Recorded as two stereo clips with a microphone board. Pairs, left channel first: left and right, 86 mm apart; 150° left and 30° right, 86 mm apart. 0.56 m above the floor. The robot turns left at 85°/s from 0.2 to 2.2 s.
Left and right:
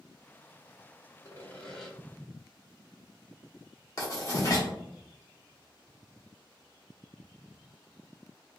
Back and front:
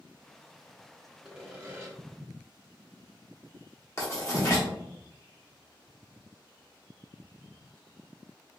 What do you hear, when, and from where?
1.2 s sawing: 55° left, 1.1 m; by 1.9 s straight ahead, 1.1 m
4.0 s writing: 115° left, 1.5 m